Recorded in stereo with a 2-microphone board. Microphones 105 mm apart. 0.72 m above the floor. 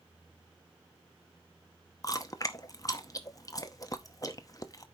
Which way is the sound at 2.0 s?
35° left (ahead or behind).